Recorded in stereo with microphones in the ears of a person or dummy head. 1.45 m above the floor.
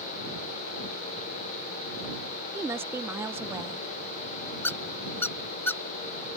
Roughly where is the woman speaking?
Centre.